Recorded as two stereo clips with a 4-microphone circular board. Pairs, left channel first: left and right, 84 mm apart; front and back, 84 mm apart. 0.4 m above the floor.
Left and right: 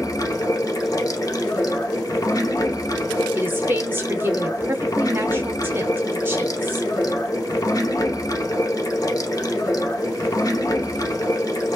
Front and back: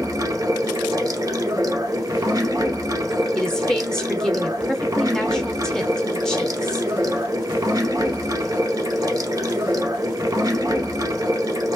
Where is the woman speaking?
70° right, 0.8 m.